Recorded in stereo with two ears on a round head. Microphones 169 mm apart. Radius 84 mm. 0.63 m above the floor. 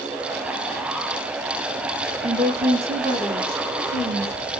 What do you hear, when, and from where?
2.2 s a woman speaking: 35° right (ahead or behind), 0.7 m; by 4.3 s 30° right (ahead or behind), 1.8 m